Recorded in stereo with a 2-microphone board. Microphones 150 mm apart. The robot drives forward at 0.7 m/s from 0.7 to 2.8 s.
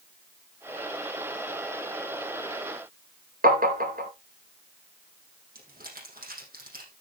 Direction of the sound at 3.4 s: 65° right (ahead or behind).